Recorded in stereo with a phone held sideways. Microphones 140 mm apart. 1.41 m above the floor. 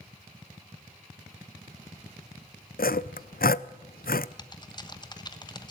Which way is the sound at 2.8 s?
80° left.